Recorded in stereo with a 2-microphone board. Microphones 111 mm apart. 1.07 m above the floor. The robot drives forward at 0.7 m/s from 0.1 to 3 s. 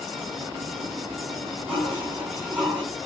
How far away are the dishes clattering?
About 6.5 m.